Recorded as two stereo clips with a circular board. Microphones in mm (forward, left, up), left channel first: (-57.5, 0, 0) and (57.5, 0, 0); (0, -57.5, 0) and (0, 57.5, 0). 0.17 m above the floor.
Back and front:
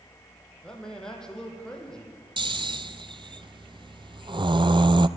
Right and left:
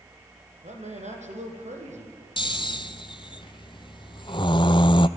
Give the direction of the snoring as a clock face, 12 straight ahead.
1 o'clock.